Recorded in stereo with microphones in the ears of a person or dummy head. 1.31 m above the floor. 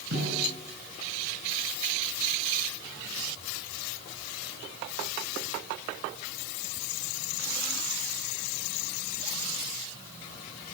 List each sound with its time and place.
0.1 s a snare drum: 60° right (ahead or behind), 8 m